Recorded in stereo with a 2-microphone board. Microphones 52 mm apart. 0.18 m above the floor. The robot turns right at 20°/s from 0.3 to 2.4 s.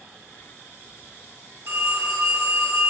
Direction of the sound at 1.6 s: 50° right (ahead or behind).